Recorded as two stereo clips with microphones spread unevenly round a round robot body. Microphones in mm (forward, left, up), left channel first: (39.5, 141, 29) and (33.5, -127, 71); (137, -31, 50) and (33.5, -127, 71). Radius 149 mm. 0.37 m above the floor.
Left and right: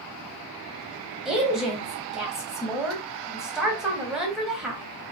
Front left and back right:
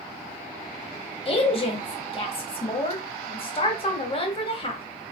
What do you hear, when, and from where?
1.2 s a woman speaking: straight ahead, 2 m